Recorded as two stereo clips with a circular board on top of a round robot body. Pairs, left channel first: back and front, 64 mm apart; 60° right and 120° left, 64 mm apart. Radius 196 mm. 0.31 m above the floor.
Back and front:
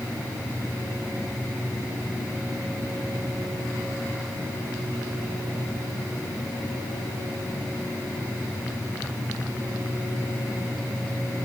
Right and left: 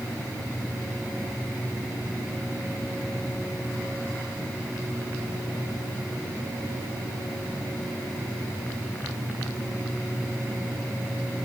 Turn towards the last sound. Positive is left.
No sound to turn to.